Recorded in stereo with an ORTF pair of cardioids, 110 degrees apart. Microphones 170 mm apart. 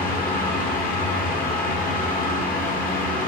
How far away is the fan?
About 0.9 m.